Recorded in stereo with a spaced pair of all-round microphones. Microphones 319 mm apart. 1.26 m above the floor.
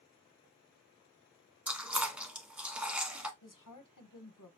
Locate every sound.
1.7 s chewing: 5° right (ahead or behind), 1.1 m
3.4 s a woman speaking: 75° left (ahead or behind), 0.8 m